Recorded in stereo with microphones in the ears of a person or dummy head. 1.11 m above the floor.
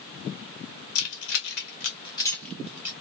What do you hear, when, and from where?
0.9 s keys jangling: 70° left (ahead or behind), 0.9 m; by 2.9 s 15° right (ahead or behind), 0.7 m